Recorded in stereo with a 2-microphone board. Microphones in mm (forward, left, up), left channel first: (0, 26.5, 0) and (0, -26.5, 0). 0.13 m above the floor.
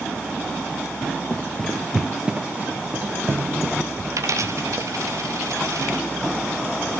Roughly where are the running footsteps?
Left.